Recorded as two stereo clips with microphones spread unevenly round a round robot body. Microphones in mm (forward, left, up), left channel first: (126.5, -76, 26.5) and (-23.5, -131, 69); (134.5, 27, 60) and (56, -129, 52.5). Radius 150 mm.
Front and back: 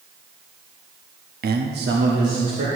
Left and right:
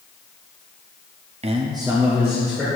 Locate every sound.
1.4 s a man speaking: 150° right, 0.8 m; by 2.7 s 155° left, 1.8 m